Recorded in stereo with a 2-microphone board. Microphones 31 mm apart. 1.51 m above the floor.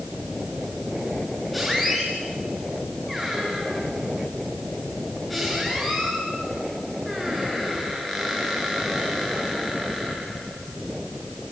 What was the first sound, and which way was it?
A squeak, 5° right (ahead or behind).